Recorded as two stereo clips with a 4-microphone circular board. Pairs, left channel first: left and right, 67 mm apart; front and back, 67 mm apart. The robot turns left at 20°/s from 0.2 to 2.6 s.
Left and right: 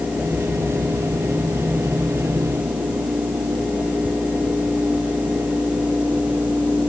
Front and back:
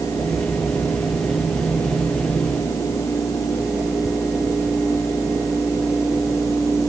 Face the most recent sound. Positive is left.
No sound to turn to.